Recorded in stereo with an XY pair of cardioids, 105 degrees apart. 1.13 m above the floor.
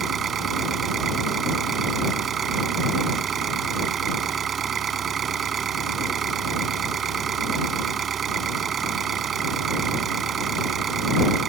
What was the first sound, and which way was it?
An engine running, 50° right.